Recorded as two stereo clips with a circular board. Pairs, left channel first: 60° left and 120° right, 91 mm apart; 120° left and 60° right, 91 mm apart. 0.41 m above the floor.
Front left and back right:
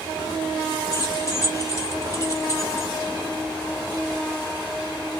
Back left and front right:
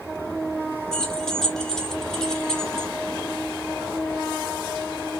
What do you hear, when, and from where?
0.9 s keys jangling: 40° left, 1.0 m